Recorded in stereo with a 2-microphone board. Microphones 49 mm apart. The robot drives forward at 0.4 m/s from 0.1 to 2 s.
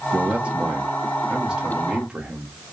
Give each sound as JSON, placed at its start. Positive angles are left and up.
{"t": 0.1, "sound": "a man speaking", "side_deg": -30, "distance_m": 0.7}